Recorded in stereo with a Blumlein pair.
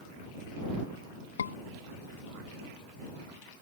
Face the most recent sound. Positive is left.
turn(degrees=70)